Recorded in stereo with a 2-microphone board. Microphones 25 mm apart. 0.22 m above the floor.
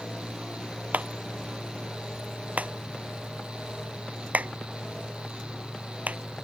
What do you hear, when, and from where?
0.9 s a clap: 75° right (ahead or behind)